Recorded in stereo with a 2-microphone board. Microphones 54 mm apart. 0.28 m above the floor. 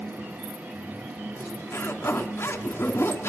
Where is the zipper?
50° left (ahead or behind), 2.5 m.